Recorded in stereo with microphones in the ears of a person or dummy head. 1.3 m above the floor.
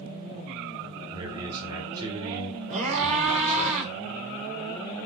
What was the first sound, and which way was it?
A man speaking, 25° right (ahead or behind).